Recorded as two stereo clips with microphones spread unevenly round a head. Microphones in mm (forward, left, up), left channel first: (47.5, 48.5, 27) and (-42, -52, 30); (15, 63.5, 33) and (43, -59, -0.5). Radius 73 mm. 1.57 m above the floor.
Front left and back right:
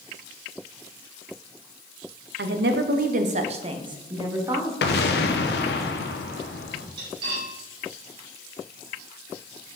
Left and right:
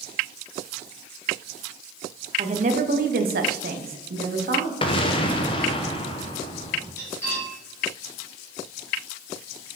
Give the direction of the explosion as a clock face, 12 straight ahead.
10 o'clock.